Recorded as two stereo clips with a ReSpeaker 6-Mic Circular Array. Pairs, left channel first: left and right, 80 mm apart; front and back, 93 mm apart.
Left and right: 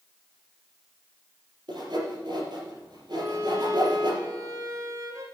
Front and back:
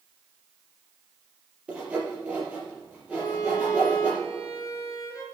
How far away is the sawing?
About 5 m.